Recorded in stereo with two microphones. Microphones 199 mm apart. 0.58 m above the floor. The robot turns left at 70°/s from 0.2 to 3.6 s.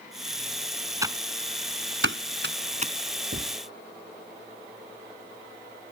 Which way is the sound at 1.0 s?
15° right (ahead or behind).